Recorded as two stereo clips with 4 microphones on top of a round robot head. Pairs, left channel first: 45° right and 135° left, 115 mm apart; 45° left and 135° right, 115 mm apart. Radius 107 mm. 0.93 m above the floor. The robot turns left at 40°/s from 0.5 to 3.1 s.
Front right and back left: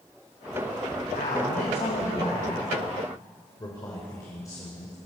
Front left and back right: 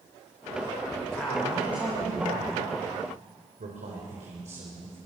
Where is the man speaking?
30° right, 4 m; by 5.0 s 110° right, 4 m.